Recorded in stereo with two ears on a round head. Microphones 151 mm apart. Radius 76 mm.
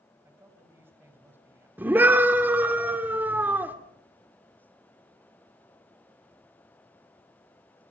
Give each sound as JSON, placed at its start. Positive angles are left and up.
{"t": 0.2, "sound": "a man speaking", "side_deg": -15, "distance_m": 5.0}
{"t": 1.8, "sound": "a scream", "side_deg": -10, "distance_m": 2.5}